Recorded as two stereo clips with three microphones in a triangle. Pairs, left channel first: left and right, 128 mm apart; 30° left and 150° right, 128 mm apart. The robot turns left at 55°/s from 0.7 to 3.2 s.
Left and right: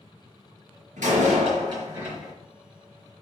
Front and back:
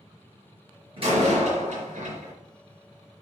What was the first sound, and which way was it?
A door slam, 105° right.